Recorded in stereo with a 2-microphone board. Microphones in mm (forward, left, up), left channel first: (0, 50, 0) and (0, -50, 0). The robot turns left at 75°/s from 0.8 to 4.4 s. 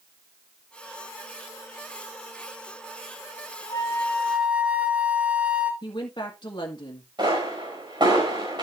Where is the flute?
40° left, 1.4 m; by 5.7 s 10° right, 1.4 m.